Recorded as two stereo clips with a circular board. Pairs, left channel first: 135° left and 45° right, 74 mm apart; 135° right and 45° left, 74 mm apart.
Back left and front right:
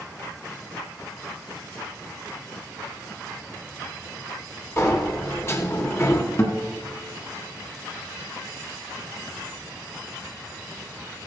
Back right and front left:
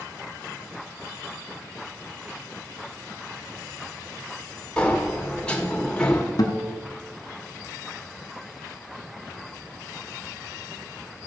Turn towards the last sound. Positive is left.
turn(degrees=-165)